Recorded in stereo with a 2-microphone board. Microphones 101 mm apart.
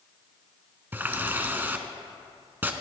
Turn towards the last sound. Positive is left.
turn(degrees=-20)  # may be behind; listen again after turning